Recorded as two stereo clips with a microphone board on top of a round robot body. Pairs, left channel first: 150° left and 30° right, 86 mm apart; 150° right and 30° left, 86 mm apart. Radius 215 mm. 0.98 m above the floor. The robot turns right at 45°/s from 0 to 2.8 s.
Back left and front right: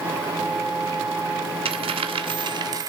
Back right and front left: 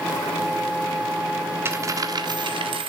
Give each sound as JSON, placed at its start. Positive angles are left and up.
{"t": 1.6, "sound": "a dropped coin", "azimuth_deg": -35, "distance_m": 1.4}